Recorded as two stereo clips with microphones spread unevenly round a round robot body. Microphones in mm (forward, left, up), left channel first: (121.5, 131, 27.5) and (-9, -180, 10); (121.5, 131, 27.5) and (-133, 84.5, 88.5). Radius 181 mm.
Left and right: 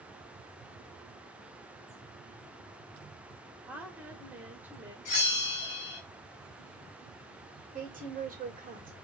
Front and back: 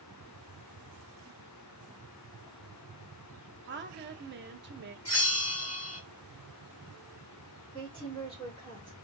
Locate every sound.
3.7 s a woman speaking: 175° left, 1.2 m
5.0 s a bell: 35° left, 2.5 m
7.7 s a woman speaking: 50° right, 2.5 m